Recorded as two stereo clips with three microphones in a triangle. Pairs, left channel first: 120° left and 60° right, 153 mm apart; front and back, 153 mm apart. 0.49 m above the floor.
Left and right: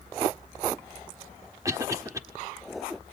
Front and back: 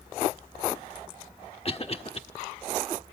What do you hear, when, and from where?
1.6 s a cough: 5° right, 1.1 m